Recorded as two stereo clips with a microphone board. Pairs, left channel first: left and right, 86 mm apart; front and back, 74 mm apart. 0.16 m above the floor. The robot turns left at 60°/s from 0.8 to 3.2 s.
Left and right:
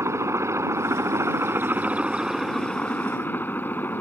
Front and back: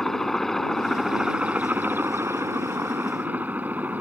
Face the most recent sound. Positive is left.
turn(degrees=135)